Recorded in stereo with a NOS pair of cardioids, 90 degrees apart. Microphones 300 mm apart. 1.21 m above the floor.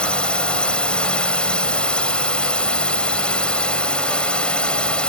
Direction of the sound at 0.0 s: 5° left.